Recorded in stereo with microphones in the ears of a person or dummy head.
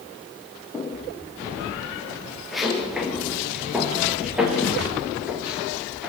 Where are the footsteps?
15° left (ahead or behind), 3.5 m; by 6.1 s 5° right (ahead or behind), 8.5 m.